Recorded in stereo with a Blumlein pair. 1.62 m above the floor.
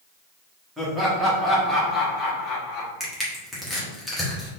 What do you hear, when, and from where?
0.8 s laughter: 10° right, 2.0 m; by 2.9 s 40° left, 1.8 m
3.0 s crushing: 5° left, 1.5 m